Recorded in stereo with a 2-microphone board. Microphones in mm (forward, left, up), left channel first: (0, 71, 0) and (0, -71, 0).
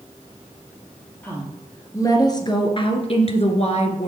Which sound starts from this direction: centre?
A woman speaking, at 1.2 s.